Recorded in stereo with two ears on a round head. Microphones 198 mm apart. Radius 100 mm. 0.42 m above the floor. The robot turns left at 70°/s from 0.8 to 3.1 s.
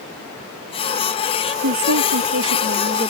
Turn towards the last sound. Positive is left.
turn(degrees=-160)